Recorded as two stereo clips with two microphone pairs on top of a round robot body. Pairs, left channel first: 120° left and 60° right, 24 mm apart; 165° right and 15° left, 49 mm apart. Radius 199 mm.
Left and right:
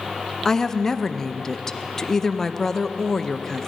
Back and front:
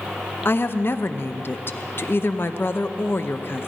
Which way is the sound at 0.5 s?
165° right.